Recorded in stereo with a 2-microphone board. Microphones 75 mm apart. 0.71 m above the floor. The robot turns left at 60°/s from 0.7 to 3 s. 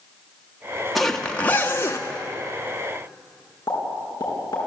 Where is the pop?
75° left (ahead or behind), 5 m.